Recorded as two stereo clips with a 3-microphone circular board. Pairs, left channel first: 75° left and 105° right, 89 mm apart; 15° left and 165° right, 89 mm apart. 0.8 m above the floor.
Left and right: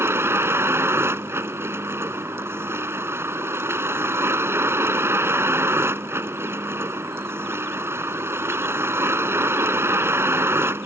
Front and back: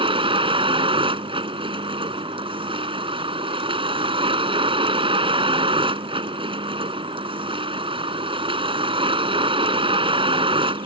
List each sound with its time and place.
0.0 s a vehicle: 165° right